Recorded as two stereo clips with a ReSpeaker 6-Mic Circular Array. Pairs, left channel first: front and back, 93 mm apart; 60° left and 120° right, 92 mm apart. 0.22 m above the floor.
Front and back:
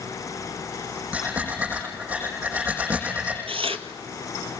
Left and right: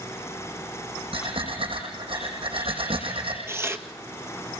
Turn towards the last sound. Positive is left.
turn(degrees=175)